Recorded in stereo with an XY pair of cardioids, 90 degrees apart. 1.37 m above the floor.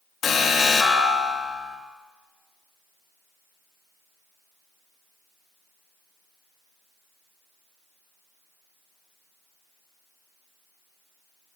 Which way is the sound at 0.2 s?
65° left.